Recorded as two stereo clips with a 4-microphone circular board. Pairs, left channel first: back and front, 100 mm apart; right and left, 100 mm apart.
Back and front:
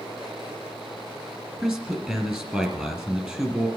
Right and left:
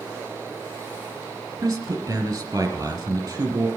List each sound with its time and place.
1.6 s a man speaking: 70° left, 1.8 m